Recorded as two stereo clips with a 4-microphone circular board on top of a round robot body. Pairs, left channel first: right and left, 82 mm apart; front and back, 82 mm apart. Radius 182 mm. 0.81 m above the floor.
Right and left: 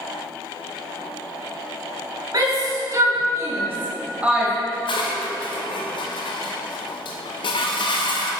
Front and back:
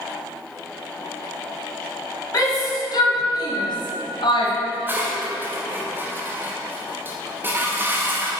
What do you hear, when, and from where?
2.3 s a shout: 45° left, 2.5 m; by 4.5 s 10° left, 1.6 m
4.7 s dishes clattering: 115° right, 0.6 m